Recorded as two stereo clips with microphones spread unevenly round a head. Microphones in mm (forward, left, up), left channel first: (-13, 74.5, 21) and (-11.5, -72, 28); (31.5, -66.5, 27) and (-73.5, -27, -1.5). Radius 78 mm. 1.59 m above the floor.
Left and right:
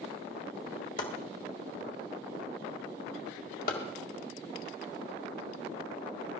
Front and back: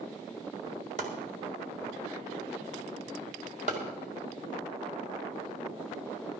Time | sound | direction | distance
1.0 | chopping | 115° left | 2 m